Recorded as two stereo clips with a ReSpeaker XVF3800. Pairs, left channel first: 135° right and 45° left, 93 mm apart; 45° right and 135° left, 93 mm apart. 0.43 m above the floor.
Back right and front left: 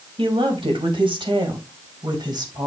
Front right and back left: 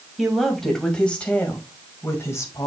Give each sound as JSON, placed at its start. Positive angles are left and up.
{"t": 0.2, "sound": "a woman speaking", "azimuth_deg": 45, "distance_m": 2.5}